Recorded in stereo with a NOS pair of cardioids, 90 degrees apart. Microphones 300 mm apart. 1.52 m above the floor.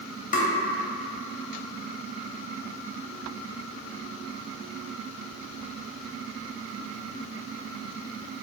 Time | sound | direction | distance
0.3 | tapping | 30° left | 0.7 m